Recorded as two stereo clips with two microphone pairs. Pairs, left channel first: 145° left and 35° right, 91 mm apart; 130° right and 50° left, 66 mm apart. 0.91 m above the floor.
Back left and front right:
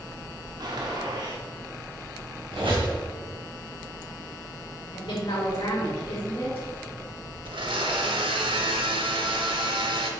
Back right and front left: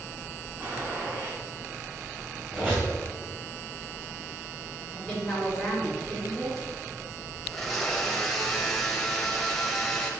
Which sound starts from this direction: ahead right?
A blender, at 7.5 s.